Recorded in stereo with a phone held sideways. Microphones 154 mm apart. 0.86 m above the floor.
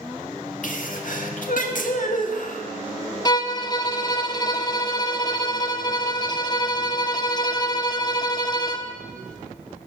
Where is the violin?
30° left (ahead or behind), 0.8 m.